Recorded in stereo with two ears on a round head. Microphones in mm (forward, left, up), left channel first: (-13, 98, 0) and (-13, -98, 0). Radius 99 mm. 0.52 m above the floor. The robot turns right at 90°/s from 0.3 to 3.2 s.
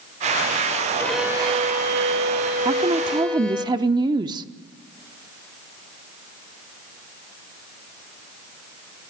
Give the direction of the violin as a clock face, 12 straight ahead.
6 o'clock.